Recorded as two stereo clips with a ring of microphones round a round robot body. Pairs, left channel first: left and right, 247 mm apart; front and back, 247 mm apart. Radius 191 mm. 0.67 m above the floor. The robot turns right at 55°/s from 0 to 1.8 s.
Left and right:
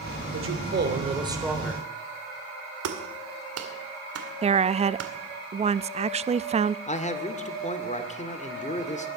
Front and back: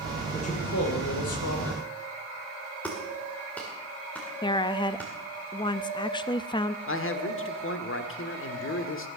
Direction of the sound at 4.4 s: 50° right.